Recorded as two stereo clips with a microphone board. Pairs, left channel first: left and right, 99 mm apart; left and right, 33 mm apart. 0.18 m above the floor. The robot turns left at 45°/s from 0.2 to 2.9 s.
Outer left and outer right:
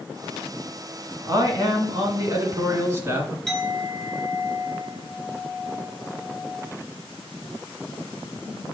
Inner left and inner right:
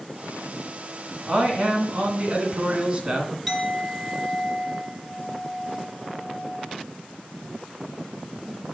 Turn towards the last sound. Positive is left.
turn(degrees=5)  # may be behind; listen again after turning